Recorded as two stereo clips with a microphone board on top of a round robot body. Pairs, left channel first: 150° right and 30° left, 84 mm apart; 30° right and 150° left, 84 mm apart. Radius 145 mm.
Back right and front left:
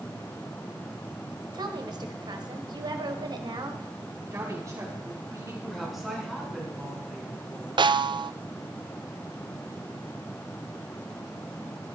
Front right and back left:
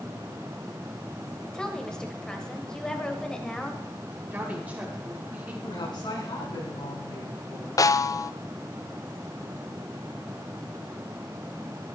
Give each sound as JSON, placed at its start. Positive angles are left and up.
{"t": 1.5, "sound": "a woman speaking", "azimuth_deg": 50, "distance_m": 2.0}
{"t": 4.3, "sound": "a woman speaking", "azimuth_deg": 80, "distance_m": 4.5}
{"t": 5.6, "sound": "a woman speaking", "azimuth_deg": -60, "distance_m": 5.5}
{"t": 7.8, "sound": "a snare drum", "azimuth_deg": 15, "distance_m": 0.6}